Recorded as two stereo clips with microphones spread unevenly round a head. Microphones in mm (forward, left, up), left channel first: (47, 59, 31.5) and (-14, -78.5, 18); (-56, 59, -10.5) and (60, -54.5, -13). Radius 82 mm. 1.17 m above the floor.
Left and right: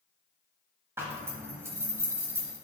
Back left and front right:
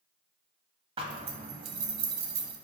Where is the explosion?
No explosion in this recording.